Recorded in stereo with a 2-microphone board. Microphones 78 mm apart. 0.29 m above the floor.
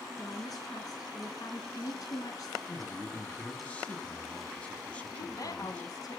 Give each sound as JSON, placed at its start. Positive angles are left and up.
{"t": 0.2, "sound": "a woman speaking", "side_deg": 55, "distance_m": 4.0}
{"t": 2.7, "sound": "a man speaking", "side_deg": 15, "distance_m": 3.0}
{"t": 5.1, "sound": "a woman speaking", "side_deg": 55, "distance_m": 2.5}